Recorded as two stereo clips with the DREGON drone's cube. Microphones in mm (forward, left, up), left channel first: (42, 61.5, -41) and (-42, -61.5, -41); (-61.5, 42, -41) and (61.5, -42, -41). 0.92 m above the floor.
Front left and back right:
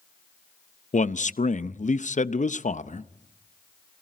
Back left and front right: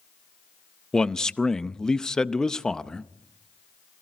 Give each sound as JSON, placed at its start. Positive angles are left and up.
{"t": 0.9, "sound": "a man speaking", "azimuth_deg": 60, "distance_m": 0.6}